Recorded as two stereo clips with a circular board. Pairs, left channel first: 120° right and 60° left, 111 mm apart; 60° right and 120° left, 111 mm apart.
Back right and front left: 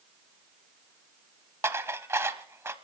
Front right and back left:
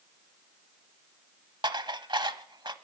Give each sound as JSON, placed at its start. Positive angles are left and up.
{"t": 1.6, "sound": "dishes clattering", "azimuth_deg": 115, "distance_m": 0.8}